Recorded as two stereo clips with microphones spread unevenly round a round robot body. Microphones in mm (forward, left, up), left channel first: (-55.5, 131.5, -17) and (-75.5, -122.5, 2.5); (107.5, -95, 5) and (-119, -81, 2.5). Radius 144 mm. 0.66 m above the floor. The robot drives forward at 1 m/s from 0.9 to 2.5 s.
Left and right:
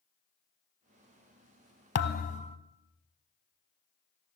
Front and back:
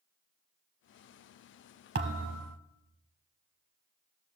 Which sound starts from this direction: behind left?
A thud, at 1.9 s.